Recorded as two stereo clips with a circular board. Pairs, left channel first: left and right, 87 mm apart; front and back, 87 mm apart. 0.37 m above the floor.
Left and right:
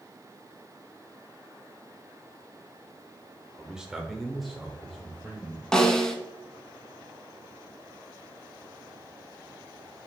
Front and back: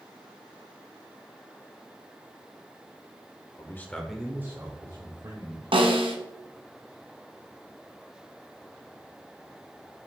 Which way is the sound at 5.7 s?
175° left.